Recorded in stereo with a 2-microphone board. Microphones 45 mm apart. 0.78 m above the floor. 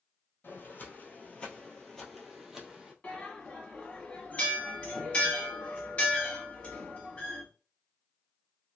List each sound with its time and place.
0.4 s footsteps: 50° left (ahead or behind), 1.1 m; by 2.9 s 10° right (ahead or behind), 1.3 m
3.0 s a bell: 30° left (ahead or behind), 1.0 m